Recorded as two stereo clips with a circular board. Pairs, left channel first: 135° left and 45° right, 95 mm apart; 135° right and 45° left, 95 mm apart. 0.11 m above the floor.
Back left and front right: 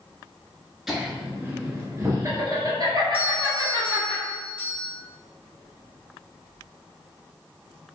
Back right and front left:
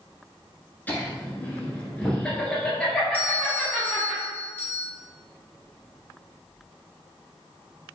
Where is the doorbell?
95° right, 1.6 m.